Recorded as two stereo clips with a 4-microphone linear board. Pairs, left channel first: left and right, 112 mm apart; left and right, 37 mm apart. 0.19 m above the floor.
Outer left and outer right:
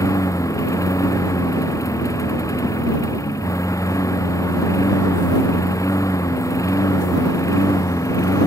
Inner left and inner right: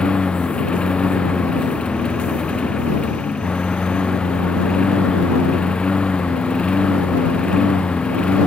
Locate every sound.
0.0 s a lawn mower: 30° left (ahead or behind)